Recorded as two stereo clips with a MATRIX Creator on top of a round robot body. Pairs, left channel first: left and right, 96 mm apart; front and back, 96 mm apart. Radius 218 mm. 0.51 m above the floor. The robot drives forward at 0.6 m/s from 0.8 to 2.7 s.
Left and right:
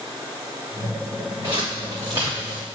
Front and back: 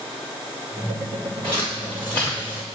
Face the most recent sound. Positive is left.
turn(degrees=-140)